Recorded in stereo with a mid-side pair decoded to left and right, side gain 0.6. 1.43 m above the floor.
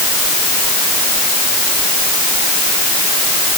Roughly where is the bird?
No bird in this recording.